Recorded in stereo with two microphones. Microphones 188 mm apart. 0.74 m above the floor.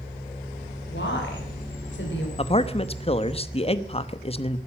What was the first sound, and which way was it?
A woman speaking, 80° left.